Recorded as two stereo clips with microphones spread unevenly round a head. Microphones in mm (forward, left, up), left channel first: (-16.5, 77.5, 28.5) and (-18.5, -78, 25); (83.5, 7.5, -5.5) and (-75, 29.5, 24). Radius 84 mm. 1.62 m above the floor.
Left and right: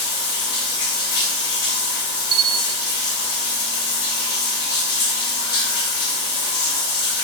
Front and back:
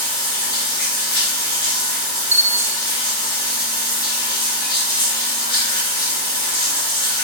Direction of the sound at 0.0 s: 60° left.